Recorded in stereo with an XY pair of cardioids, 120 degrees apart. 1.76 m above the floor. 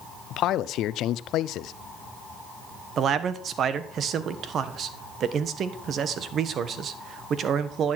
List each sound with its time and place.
0.3 s a man speaking: 70° left, 0.7 m
3.0 s a man speaking: 55° right, 1.4 m